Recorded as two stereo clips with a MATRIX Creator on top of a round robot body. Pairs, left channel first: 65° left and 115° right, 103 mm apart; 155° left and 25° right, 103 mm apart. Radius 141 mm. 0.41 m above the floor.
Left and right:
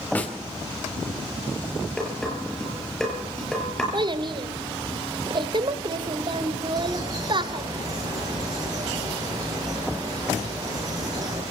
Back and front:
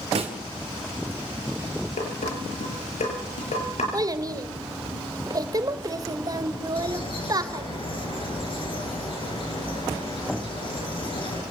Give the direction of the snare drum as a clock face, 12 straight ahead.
12 o'clock.